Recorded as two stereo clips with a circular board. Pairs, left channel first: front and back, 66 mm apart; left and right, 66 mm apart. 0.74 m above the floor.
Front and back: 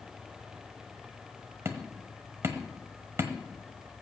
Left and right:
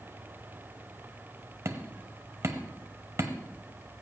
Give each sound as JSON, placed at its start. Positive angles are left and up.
{"t": 1.6, "sound": "hammering", "azimuth_deg": -135, "distance_m": 1.3}